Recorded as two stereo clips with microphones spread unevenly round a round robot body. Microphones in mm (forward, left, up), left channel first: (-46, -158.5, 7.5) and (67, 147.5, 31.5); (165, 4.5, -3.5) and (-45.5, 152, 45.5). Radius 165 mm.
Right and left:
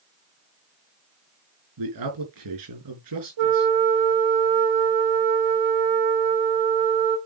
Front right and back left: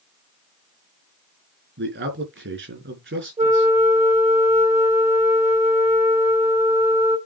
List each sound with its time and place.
1.8 s a man speaking: 100° left, 4.5 m
3.4 s a flute: 75° left, 2.5 m